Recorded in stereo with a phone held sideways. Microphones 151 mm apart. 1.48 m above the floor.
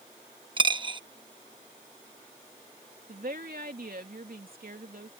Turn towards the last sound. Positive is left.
turn(degrees=-80)